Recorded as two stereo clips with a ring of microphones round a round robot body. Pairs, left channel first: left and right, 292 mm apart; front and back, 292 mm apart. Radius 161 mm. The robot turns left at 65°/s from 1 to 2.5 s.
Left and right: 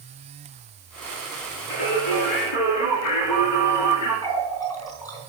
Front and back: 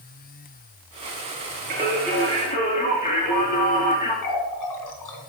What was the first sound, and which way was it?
Singing, 115° left.